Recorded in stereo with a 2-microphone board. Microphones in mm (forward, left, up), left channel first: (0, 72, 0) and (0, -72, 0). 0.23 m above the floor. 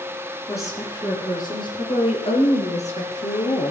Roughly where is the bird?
No bird in this recording.